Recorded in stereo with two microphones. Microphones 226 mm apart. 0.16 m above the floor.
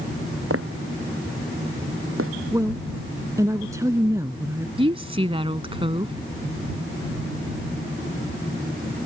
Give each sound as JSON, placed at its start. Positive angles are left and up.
{"t": 0.5, "sound": "footsteps", "side_deg": -85}
{"t": 2.5, "sound": "a woman speaking", "side_deg": -15}
{"t": 4.8, "sound": "a woman speaking", "side_deg": -25}